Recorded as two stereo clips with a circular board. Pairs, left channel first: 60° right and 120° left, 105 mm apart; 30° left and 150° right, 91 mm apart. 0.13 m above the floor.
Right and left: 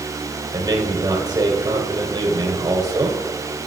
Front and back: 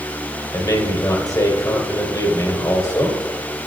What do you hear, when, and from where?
0.5 s a man speaking: 75° left, 3 m